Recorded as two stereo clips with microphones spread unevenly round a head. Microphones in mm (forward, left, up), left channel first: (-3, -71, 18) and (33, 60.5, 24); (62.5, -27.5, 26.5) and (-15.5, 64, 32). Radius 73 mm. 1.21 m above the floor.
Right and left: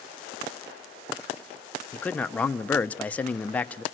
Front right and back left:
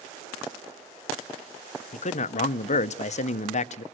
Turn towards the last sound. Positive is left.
turn(degrees=-25)